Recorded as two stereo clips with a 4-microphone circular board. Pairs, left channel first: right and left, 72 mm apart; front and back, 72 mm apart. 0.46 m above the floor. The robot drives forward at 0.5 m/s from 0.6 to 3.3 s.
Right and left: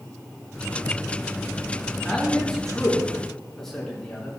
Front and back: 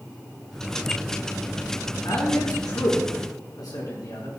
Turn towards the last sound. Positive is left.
turn(degrees=-5)